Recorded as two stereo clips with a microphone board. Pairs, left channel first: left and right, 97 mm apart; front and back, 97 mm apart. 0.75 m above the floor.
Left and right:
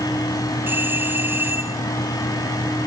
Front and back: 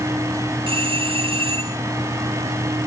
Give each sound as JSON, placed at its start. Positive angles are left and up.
{"t": 0.7, "sound": "a doorbell", "azimuth_deg": -155}